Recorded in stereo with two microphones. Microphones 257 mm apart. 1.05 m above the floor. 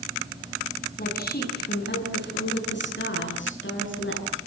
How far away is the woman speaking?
About 8.5 m.